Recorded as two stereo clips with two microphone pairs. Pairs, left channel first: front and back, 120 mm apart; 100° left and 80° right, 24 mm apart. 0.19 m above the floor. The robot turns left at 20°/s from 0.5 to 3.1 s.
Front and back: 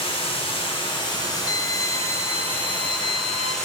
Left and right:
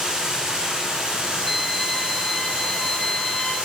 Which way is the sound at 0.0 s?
30° right.